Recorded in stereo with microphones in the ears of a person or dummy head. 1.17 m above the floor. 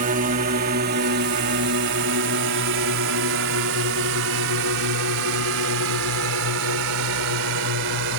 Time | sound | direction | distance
0.0 | a drone | 45° right (ahead or behind) | ?